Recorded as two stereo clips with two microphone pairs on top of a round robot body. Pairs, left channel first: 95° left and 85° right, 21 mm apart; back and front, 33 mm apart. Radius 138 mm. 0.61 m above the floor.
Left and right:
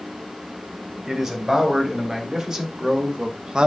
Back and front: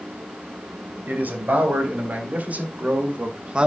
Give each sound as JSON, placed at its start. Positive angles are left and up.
{"t": 1.1, "sound": "a man speaking", "azimuth_deg": -25, "distance_m": 4.5}